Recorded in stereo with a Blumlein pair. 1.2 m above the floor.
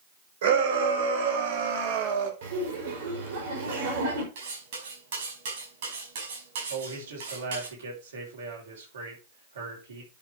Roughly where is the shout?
Ahead right.